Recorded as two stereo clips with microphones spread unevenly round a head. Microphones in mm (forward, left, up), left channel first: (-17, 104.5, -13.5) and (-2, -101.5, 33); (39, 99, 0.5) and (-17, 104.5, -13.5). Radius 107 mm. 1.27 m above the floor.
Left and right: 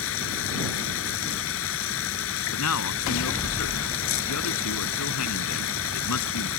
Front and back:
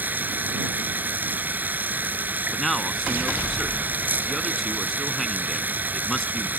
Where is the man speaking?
80° left.